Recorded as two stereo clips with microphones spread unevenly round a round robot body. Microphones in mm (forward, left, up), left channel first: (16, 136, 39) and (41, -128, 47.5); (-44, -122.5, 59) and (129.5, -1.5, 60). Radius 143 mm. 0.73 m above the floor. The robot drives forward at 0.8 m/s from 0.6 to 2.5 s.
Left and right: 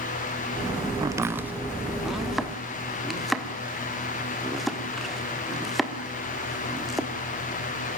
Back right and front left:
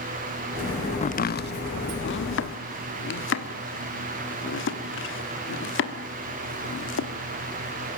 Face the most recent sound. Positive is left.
turn(degrees=-175)